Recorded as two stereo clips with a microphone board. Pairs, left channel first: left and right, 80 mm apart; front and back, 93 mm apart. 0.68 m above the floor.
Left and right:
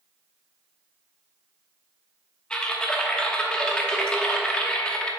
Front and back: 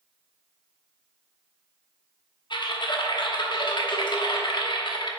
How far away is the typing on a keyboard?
About 0.9 m.